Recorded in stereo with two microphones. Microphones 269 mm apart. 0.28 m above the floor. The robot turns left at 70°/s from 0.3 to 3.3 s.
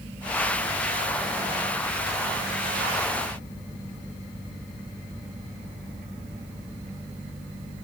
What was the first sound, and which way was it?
Only background noise.